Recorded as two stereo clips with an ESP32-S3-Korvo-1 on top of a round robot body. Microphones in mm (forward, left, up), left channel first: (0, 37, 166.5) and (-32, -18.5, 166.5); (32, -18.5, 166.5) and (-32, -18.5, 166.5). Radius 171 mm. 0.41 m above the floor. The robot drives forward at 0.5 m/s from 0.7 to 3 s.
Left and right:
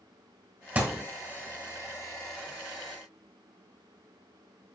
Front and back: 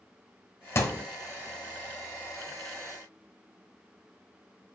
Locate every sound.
0.8 s a thud: 50° right, 1.2 m; by 1.0 s 55° right, 1.1 m